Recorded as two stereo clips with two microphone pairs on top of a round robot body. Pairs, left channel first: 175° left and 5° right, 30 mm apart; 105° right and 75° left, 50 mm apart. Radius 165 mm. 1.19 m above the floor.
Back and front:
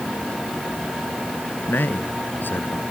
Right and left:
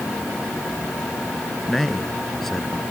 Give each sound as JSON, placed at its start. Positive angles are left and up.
{"t": 1.7, "sound": "a man speaking", "azimuth_deg": 170}